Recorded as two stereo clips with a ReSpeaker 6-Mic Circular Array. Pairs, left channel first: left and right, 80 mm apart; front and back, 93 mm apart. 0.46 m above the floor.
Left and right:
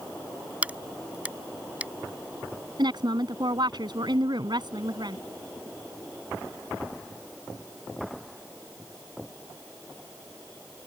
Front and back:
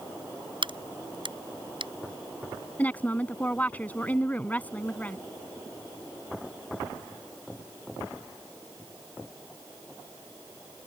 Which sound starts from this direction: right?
A woman speaking, at 2.8 s.